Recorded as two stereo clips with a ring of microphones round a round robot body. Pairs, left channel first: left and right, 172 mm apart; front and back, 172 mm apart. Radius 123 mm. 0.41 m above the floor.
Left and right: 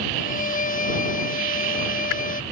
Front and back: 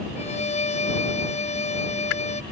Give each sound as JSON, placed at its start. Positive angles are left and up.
{"t": 0.2, "sound": "a violin", "azimuth_deg": 50}